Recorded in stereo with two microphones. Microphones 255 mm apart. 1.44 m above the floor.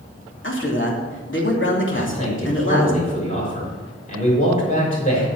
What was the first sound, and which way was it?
A man speaking, 50° left (ahead or behind).